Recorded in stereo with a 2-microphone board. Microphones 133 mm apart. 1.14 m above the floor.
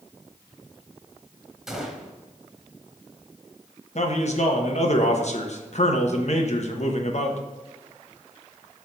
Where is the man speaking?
60° left (ahead or behind), 1.1 m.